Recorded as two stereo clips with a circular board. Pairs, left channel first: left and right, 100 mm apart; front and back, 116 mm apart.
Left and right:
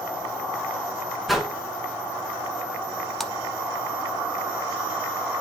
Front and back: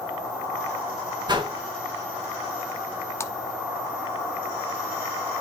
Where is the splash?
5° left, 0.7 m.